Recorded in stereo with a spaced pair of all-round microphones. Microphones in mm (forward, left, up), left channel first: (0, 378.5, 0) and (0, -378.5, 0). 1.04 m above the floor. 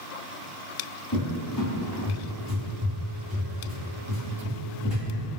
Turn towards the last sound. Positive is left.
turn(degrees=35)  # may be behind; listen again after turning